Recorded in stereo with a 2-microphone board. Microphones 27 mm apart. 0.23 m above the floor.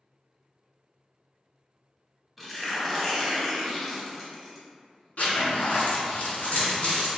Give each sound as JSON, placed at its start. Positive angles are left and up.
{"t": 2.4, "sound": "tearing paper", "side_deg": 5, "distance_m": 0.6}
{"t": 5.2, "sound": "a zipper", "side_deg": 65, "distance_m": 1.1}